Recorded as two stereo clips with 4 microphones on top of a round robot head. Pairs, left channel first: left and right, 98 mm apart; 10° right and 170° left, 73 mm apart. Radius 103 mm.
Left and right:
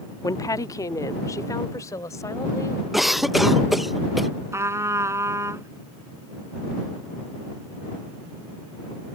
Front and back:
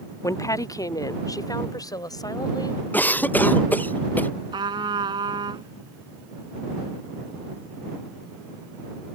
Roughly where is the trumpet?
Behind right.